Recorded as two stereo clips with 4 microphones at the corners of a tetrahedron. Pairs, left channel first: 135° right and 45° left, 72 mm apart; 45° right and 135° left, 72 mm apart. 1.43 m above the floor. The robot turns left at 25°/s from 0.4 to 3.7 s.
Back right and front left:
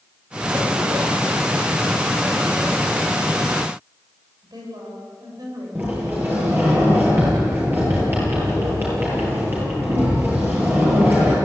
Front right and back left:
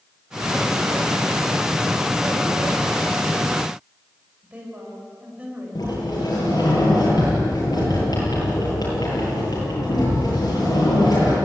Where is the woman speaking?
65° left, 7 m.